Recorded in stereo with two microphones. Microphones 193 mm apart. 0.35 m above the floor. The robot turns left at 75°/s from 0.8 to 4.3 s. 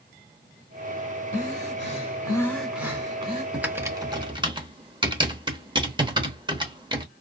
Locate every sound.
1.3 s breathing: 100° left, 1.3 m; by 3.4 s 55° right, 1.3 m
3.5 s typing on a keyboard: 5° right (ahead or behind), 0.8 m; by 7.0 s 25° right (ahead or behind), 0.8 m